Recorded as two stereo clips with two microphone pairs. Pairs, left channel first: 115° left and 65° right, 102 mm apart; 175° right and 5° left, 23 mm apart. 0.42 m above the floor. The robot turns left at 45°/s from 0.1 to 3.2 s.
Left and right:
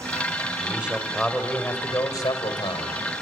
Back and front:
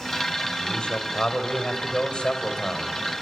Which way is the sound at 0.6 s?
130° right.